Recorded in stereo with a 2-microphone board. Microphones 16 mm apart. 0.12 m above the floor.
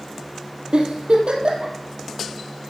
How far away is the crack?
I don't hear a crack.